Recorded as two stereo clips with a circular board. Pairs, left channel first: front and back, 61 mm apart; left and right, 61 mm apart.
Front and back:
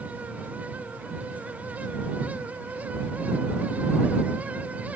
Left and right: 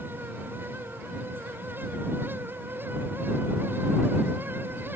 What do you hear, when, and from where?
Only background noise.